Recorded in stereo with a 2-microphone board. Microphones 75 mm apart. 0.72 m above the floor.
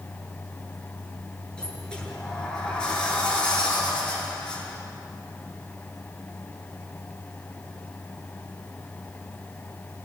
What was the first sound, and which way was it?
A sliding door, 10° left (ahead or behind).